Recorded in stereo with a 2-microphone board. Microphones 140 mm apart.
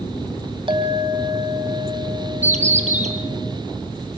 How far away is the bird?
About 2.5 m.